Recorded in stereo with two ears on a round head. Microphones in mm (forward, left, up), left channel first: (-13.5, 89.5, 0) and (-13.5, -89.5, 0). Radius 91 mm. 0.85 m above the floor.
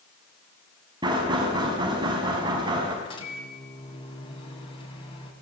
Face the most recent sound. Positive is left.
turn(degrees=25)  # may be behind; listen again after turning